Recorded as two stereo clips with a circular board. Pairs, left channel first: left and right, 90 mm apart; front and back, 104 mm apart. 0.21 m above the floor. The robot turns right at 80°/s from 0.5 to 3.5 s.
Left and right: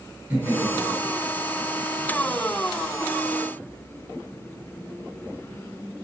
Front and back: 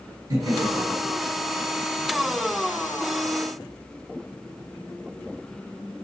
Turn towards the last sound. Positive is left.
turn(degrees=85)